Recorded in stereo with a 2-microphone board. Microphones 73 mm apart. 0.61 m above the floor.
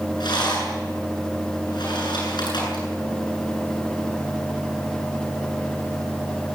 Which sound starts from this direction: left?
A rattle, at 0.2 s.